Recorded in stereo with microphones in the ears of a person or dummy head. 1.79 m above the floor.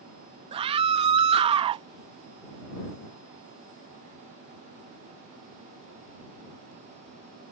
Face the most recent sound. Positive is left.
turn(degrees=-30)  # may be behind; listen again after turning